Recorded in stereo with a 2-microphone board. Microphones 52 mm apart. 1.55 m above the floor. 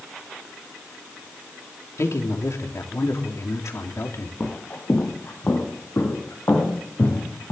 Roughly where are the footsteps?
Left.